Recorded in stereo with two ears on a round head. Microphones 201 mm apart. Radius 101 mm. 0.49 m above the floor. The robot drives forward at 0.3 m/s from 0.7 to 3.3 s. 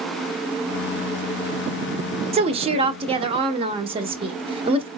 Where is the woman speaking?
25° right (ahead or behind), 0.7 m.